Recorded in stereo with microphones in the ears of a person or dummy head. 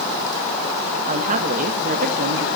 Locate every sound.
1.1 s a woman speaking: 35° right (ahead or behind), 1.4 m; by 2.5 s 45° right (ahead or behind), 2 m